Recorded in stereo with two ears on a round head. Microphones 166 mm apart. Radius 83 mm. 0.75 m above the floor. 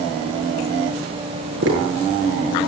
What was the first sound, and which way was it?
Tapping, 70° right (ahead or behind).